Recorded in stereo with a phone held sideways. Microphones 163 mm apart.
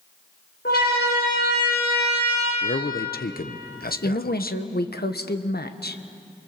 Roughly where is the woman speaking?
Left.